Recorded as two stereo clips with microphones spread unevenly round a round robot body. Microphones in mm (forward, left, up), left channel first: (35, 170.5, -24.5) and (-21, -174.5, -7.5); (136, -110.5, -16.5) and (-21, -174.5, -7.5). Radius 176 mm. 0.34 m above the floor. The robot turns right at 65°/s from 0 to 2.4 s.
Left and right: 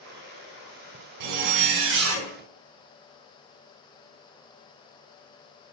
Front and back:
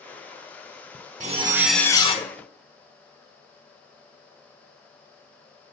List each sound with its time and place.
1.2 s a zipper: 100° right, 0.7 m; by 2.3 s 30° right, 0.7 m